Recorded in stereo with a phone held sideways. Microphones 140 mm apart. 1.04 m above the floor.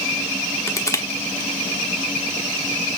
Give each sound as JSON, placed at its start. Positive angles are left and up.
{"t": 0.7, "sound": "crushing", "side_deg": 20, "distance_m": 1.1}